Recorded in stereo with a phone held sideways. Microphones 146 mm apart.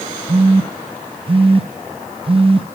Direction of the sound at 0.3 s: 40° right (ahead or behind).